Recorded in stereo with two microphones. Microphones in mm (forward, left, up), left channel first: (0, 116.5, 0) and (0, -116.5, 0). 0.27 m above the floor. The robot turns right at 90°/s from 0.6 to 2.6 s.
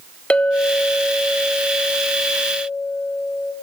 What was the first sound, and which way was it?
A clink, 5° left (ahead or behind).